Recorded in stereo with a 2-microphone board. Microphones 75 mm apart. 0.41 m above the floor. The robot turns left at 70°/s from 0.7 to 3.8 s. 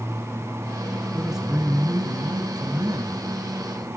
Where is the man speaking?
5° left, 1.9 m; by 3.2 s 140° right, 1.9 m.